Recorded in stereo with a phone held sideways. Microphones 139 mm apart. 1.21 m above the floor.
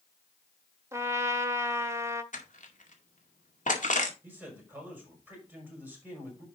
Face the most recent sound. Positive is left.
turn(degrees=-15)  # may be behind; listen again after turning